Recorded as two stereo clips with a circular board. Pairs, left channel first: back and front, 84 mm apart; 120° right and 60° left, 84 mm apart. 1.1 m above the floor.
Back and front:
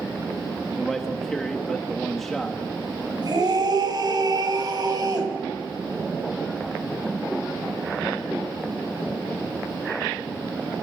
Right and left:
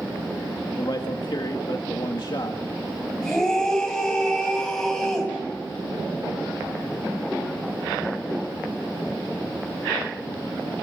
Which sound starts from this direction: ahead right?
A scream, at 3.2 s.